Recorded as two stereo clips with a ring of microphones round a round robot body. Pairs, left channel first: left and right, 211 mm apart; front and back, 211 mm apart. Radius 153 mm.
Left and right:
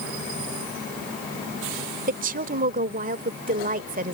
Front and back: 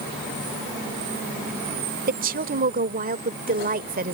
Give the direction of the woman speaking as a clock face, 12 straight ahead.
5 o'clock.